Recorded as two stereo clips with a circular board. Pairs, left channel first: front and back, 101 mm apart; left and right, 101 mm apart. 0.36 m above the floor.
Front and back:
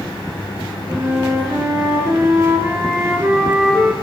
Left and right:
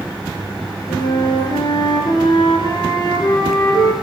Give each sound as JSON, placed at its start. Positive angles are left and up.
{"t": 0.9, "sound": "a flute", "azimuth_deg": 120, "distance_m": 4.5}